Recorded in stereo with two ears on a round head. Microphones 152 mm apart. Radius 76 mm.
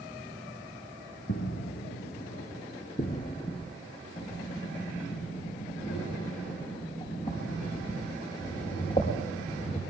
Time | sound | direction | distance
1.3 | footsteps | 75° left (ahead or behind) | 2 m
4.2 | breathing | 35° left (ahead or behind) | 5 m